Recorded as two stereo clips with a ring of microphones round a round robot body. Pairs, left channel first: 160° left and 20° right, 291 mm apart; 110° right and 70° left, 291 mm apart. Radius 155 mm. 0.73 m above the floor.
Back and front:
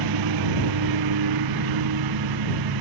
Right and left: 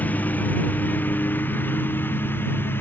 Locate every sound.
0.0 s a lawn mower: 30° right